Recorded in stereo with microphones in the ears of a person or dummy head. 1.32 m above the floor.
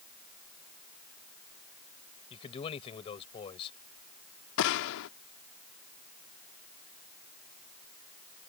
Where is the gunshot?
70° left (ahead or behind).